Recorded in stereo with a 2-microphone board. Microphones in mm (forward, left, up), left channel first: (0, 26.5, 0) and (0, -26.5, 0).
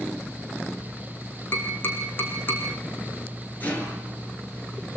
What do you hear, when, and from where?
1.5 s tapping: 40° left (ahead or behind), 5.5 m
3.6 s a rattle: 30° left (ahead or behind), 7 m